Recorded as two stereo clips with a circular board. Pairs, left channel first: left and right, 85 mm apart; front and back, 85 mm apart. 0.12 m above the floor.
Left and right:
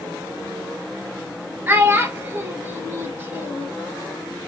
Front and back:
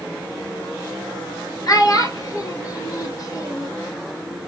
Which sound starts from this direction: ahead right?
A child speaking, at 1.7 s.